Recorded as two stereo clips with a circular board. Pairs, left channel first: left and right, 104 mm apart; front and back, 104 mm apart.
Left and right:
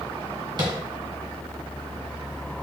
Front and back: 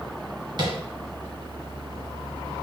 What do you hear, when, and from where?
0.6 s tapping: 135° right, 1.6 m